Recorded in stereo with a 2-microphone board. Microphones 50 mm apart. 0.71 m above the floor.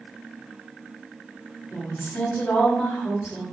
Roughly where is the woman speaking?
Left.